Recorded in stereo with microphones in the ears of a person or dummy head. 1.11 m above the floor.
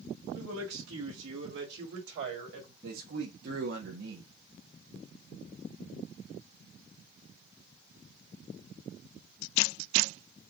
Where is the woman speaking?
85° right, 1.4 m; by 2.7 s 45° right (ahead or behind), 1.8 m.